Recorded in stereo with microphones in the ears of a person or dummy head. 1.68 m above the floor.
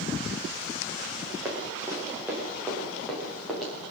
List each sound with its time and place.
1.4 s running footsteps: 15° right (ahead or behind), 6.5 m; by 3.7 s centre (ahead or behind), 9 m